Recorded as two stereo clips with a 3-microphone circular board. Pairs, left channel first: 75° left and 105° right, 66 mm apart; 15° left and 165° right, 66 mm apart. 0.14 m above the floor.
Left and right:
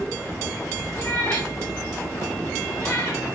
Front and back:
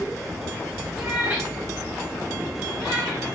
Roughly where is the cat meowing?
Behind left.